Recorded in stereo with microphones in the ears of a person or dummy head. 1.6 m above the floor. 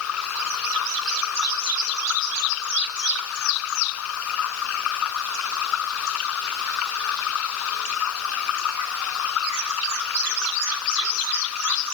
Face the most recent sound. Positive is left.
turn(degrees=80)